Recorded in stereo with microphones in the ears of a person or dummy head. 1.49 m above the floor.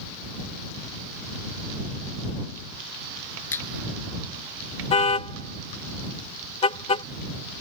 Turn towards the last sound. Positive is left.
turn(degrees=35)  # may be behind; listen again after turning